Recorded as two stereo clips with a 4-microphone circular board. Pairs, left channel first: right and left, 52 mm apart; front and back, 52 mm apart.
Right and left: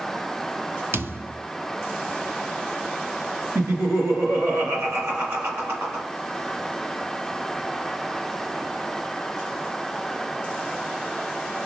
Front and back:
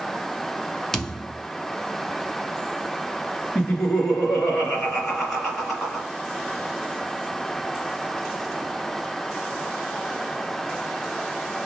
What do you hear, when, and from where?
0.9 s a thud: 80° left, 0.7 m
3.5 s laughter: 75° left, 2 m